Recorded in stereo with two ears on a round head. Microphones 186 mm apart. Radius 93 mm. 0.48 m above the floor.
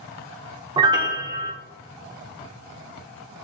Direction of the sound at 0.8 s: 20° right (ahead or behind).